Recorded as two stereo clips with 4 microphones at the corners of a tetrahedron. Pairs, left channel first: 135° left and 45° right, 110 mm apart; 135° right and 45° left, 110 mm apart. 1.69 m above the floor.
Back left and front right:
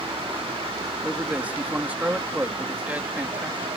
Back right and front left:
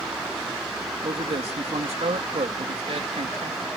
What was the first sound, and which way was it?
A man speaking, 30° left.